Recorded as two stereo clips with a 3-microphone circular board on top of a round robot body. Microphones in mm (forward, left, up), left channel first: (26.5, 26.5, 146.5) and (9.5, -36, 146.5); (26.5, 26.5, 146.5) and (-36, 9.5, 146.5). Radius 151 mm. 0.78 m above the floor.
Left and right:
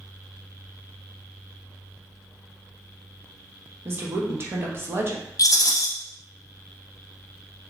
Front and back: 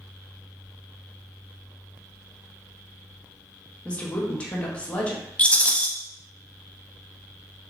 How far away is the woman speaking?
About 0.7 m.